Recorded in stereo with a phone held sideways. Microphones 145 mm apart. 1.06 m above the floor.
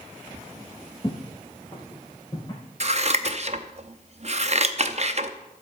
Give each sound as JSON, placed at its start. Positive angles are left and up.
{"t": 1.0, "sound": "footsteps", "side_deg": 35, "distance_m": 1.2}
{"t": 2.8, "sound": "scissors", "side_deg": -50, "distance_m": 0.7}